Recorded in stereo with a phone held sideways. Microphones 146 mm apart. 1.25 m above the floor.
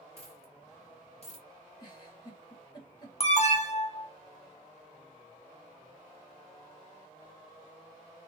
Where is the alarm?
45° left (ahead or behind), 0.9 m.